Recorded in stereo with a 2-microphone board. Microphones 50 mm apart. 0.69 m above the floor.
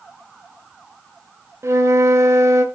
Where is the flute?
75° right (ahead or behind), 0.9 m.